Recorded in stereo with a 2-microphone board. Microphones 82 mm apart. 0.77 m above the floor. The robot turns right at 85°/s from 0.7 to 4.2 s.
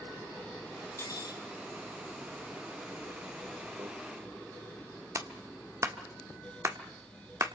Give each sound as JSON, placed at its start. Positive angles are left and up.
{"t": 1.0, "sound": "cutlery clinking", "azimuth_deg": 35, "distance_m": 3.0}
{"t": 3.8, "sound": "a microwave", "side_deg": -45, "distance_m": 2.5}
{"t": 5.2, "sound": "a clap", "side_deg": -40, "distance_m": 1.4}